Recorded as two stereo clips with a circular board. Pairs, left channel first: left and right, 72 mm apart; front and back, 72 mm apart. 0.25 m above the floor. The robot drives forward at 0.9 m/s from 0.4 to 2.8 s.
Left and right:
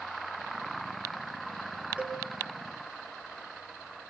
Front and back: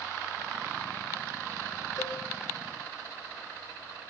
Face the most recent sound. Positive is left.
turn(degrees=-25)